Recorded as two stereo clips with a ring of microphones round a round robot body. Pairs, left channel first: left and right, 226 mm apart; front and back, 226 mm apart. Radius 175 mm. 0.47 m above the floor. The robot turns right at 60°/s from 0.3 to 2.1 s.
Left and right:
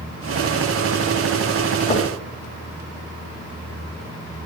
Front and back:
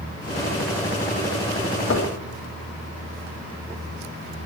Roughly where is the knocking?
Ahead left.